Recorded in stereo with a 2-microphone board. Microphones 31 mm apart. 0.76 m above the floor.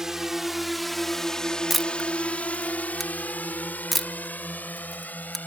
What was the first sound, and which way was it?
A drone, 15° right (ahead or behind).